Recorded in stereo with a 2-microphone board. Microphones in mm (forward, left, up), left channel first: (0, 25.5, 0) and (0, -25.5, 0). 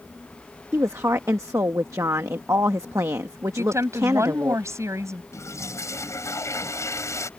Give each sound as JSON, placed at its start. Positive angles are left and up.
{"t": 0.7, "sound": "a woman speaking", "side_deg": -70}
{"t": 3.6, "sound": "a woman speaking", "side_deg": -70}
{"t": 5.3, "sound": "a toilet flushing", "side_deg": 70}